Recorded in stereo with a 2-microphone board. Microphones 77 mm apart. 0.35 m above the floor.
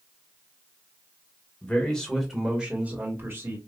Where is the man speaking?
15° left (ahead or behind), 1.3 m; by 3.6 s 35° right (ahead or behind), 1.4 m.